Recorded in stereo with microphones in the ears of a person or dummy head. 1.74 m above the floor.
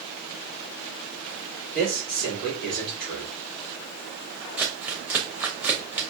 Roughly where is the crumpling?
Centre.